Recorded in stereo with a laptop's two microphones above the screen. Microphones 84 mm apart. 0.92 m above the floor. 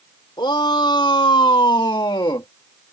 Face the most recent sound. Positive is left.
turn(degrees=60)  # may be behind; listen again after turning